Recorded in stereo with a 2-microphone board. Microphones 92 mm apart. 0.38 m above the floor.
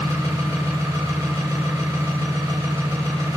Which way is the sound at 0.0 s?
30° right (ahead or behind).